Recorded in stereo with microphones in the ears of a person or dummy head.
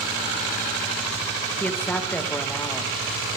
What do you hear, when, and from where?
1.6 s a woman speaking: 10° left (ahead or behind), 2 m